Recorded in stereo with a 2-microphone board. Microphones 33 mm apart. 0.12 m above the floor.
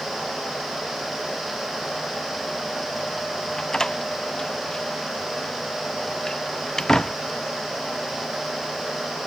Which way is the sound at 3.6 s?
15° left (ahead or behind).